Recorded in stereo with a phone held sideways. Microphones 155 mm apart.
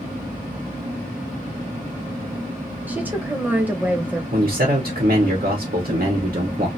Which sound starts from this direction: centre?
A woman speaking, at 2.9 s.